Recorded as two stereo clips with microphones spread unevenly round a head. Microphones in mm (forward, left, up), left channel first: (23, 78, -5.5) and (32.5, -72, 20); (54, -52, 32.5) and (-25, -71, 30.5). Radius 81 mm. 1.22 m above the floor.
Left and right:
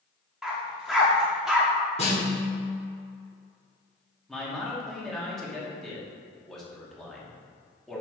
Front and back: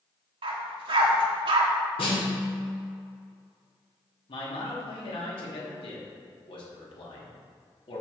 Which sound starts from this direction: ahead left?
A snare drum, at 2.0 s.